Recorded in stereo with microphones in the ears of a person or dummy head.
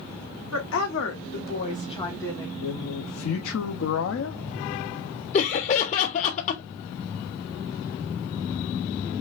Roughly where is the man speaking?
Left.